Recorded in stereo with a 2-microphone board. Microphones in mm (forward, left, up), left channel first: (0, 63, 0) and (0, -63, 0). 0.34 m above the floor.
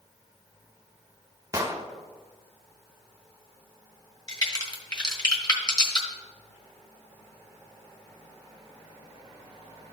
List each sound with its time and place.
1.5 s an explosion: 25° right (ahead or behind), 0.9 m
4.3 s a crack: 35° left (ahead or behind), 1.5 m